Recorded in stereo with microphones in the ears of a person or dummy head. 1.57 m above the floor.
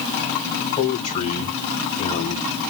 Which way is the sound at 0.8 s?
35° left (ahead or behind).